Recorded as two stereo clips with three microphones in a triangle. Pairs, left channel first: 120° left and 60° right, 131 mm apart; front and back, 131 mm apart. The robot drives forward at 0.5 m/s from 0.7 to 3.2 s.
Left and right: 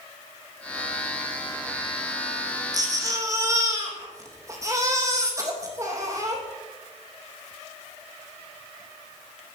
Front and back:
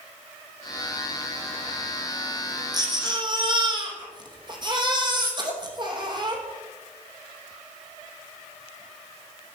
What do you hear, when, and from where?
2.7 s a baby crying: 120° right, 3 m; by 6.4 s 125° right, 3 m